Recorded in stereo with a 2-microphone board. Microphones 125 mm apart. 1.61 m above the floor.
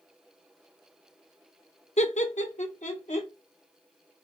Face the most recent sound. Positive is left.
turn(degrees=75)  # may be behind; listen again after turning